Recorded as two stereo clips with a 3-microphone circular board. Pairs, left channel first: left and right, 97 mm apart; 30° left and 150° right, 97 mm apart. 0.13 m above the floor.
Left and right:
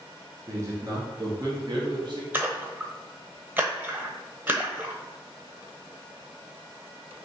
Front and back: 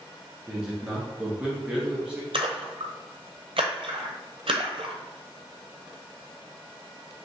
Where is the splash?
160° right, 0.9 m.